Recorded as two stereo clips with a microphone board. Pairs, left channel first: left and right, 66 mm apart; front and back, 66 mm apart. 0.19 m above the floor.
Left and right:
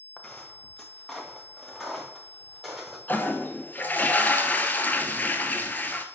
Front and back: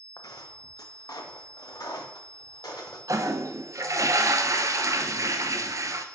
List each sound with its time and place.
0.2 s footsteps: 15° left, 1.3 m; by 3.0 s 5° right, 3 m
3.1 s a toilet flushing: 150° left, 0.7 m